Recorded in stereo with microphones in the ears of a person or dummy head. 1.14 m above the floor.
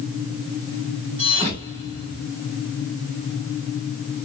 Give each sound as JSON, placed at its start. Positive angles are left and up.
{"t": 1.2, "sound": "a thud", "side_deg": -35, "distance_m": 2.5}